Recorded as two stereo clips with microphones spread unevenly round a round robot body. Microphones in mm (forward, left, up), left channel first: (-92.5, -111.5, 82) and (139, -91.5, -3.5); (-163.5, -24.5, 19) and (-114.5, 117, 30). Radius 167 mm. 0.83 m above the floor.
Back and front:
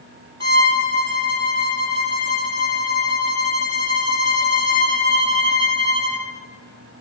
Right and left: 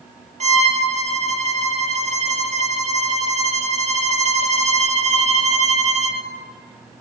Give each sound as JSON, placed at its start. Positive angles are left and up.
{"t": 0.4, "sound": "a violin", "azimuth_deg": 110, "distance_m": 4.0}